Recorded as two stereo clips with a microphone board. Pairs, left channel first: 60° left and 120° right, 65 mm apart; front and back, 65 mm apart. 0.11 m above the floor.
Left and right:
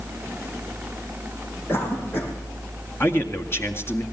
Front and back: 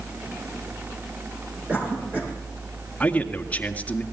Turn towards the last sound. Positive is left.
turn(degrees=55)